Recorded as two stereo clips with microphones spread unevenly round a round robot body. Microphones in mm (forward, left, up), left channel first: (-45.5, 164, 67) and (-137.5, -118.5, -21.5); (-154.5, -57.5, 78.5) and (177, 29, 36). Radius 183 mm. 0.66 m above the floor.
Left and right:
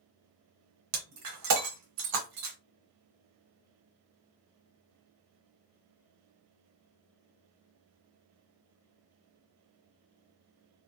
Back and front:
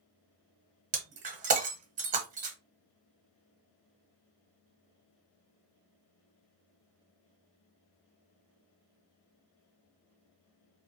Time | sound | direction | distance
0.9 | breaking glass | 55° right | 0.6 m